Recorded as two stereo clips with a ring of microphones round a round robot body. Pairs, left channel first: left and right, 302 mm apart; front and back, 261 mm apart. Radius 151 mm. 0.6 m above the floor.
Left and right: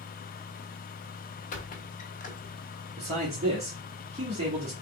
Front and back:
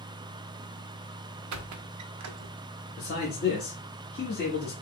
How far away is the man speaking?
About 1.2 m.